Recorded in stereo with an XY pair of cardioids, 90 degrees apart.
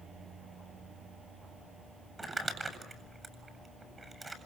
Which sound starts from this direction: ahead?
Crumpling, at 2.2 s.